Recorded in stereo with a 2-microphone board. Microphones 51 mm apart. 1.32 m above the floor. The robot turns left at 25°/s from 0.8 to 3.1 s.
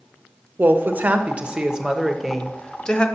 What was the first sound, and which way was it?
A woman speaking, 145° right.